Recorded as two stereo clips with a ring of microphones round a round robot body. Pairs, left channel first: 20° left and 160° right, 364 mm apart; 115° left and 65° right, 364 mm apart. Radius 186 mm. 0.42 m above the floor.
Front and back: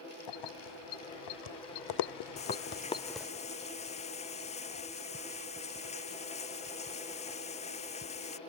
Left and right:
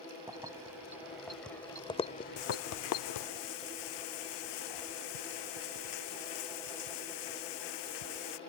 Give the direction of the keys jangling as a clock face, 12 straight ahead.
12 o'clock.